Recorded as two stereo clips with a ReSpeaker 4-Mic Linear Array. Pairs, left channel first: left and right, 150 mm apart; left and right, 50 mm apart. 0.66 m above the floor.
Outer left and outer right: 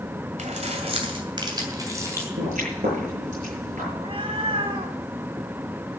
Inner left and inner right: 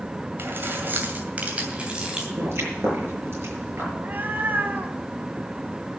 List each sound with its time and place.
0.4 s keys jangling: 50° right (ahead or behind), 2.5 m; by 2.3 s 15° right (ahead or behind), 3 m
2.4 s a pop: 55° right (ahead or behind), 7.5 m
3.9 s a cat meowing: 40° right (ahead or behind), 1.5 m